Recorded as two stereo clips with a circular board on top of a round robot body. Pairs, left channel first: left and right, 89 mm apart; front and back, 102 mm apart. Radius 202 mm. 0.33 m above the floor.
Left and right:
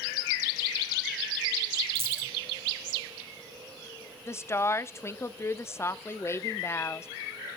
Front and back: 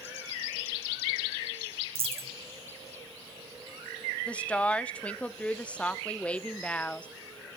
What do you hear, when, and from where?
1.9 s a dropped coin: 155° right, 2 m
4.3 s a woman speaking: 65° left, 0.9 m